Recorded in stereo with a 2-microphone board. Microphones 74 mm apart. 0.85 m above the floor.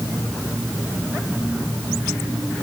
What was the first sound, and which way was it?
Only background noise.